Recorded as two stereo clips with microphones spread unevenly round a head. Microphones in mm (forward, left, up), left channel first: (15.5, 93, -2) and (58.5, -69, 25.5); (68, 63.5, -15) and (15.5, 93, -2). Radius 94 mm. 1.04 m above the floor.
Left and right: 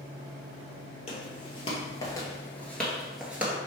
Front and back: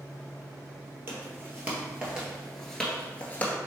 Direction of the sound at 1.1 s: 165° left.